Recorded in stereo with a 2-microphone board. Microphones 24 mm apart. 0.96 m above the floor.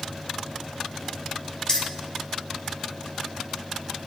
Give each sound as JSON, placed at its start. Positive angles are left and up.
{"t": 1.7, "sound": "keys jangling", "side_deg": 35, "distance_m": 0.7}